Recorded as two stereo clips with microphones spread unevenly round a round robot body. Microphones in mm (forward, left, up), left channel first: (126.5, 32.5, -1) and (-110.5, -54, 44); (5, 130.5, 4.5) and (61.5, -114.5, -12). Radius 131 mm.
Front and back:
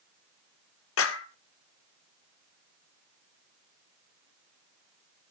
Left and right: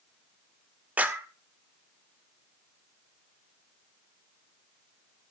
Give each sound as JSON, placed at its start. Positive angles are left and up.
{"t": 1.0, "sound": "a clap", "azimuth_deg": 5, "distance_m": 1.7}